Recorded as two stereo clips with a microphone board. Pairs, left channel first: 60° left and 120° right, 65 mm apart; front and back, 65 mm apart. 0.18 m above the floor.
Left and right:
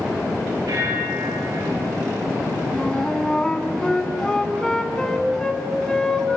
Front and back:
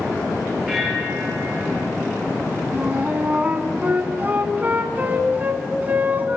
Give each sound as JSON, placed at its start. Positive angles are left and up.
{"t": 0.7, "sound": "a bell", "azimuth_deg": -90, "distance_m": 8.5}
{"t": 2.7, "sound": "a flute", "azimuth_deg": 135, "distance_m": 1.7}